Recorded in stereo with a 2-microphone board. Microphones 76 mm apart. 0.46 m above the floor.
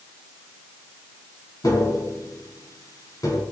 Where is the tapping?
55° left (ahead or behind), 5 m.